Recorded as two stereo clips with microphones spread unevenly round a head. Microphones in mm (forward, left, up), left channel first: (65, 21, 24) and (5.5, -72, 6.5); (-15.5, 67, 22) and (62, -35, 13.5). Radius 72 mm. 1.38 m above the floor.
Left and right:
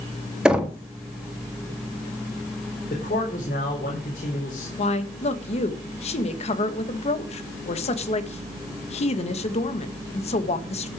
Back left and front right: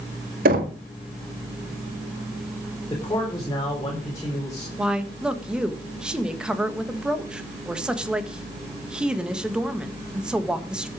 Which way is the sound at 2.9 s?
65° left.